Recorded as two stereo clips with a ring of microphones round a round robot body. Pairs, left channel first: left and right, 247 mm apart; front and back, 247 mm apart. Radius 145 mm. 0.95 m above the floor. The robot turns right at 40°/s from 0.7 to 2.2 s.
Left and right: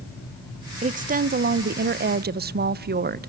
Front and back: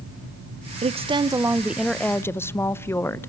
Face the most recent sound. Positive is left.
turn(degrees=-75)